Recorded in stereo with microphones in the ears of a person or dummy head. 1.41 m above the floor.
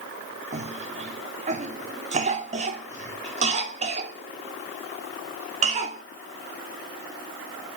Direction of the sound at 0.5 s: 40° right (ahead or behind).